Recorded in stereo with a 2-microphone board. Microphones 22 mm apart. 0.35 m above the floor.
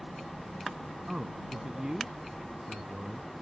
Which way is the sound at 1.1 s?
35° right (ahead or behind).